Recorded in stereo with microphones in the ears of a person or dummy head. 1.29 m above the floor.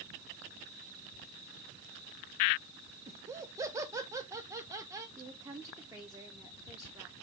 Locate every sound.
3.1 s laughter: 15° right (ahead or behind), 0.7 m
5.2 s a woman speaking: 15° right (ahead or behind), 0.8 m